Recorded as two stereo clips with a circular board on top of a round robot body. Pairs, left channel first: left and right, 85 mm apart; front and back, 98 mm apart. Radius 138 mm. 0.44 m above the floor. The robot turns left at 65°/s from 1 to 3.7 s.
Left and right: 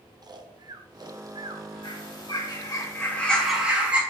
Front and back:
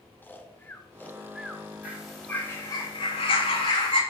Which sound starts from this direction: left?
A bird, at 1.8 s.